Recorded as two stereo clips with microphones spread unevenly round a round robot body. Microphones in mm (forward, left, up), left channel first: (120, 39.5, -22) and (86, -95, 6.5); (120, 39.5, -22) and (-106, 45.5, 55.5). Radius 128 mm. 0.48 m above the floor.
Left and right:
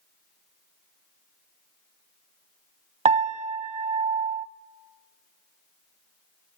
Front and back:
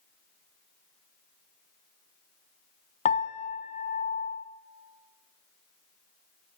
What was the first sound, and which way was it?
A piano, 70° right.